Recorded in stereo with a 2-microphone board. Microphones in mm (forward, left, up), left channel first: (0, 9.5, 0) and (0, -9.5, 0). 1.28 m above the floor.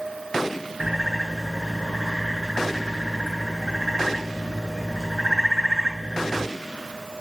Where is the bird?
20° right (ahead or behind), 7.5 m.